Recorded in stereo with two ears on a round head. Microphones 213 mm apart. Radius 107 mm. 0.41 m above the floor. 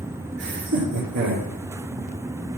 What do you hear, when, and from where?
0.4 s laughter: 70° right (ahead or behind), 6.5 m; by 1.5 s 75° right (ahead or behind), 7.5 m